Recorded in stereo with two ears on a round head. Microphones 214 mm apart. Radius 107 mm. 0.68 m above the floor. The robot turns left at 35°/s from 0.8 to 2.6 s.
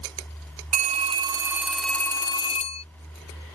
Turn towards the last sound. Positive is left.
turn(degrees=150)